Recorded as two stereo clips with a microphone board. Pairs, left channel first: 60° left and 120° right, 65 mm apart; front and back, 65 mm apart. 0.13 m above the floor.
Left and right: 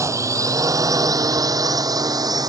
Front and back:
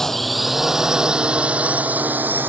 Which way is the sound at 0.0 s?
85° right.